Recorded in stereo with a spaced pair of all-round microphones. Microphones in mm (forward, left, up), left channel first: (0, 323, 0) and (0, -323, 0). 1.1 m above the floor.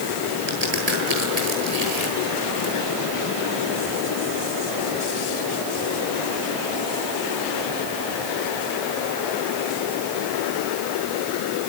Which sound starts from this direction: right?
A crack, at 0.5 s.